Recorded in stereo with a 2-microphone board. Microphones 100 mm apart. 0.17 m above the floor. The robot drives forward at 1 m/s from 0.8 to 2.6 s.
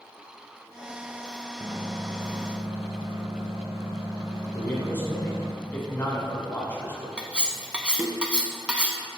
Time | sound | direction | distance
1.6 | a microwave | 30° right (ahead or behind) | 1.4 m
4.5 | a man speaking | 20° left (ahead or behind) | 1.7 m
7.2 | cutlery clinking | 10° right (ahead or behind) | 0.6 m